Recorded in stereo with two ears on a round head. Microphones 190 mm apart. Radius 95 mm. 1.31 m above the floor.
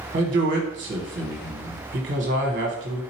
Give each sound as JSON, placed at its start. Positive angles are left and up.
{"t": 0.1, "sound": "a man speaking", "side_deg": -40, "distance_m": 1.2}